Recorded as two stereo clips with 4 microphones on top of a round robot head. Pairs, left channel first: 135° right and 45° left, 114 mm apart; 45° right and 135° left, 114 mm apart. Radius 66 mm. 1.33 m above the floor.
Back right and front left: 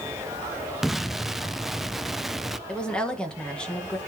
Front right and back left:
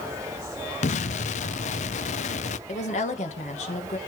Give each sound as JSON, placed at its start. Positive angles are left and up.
{"t": 0.8, "sound": "an explosion", "azimuth_deg": -40, "distance_m": 0.5}
{"t": 2.7, "sound": "a woman speaking", "azimuth_deg": -50, "distance_m": 1.7}